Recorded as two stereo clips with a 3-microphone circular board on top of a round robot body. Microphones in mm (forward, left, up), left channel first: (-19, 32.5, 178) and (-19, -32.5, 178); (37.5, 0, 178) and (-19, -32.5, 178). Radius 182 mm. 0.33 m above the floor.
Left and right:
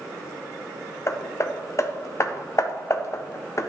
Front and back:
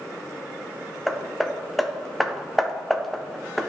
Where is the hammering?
120° left, 0.8 m.